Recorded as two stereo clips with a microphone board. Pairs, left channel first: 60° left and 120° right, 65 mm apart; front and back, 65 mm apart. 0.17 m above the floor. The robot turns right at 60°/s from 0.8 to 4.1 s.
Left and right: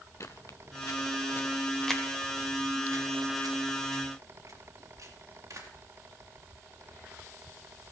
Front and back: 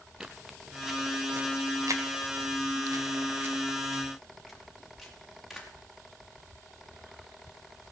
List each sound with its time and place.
0.2 s footsteps: 100° left, 0.8 m; by 5.7 s 90° right, 4.5 m